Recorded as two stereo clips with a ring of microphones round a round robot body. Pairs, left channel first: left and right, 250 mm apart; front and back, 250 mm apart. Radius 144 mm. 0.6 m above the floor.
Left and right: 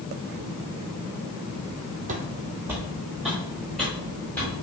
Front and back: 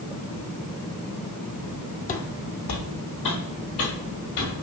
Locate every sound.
2.1 s footsteps: 40° right, 0.7 m; by 4.5 s 5° left, 3.5 m